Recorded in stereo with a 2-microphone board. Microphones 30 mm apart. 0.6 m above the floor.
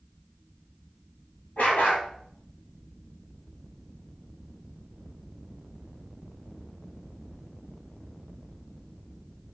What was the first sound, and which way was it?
A dog barking, 60° left (ahead or behind).